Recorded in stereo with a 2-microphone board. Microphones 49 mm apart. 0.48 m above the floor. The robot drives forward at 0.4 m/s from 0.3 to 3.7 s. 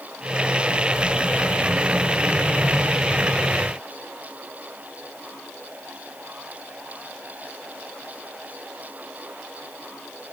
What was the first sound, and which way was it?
Only background noise.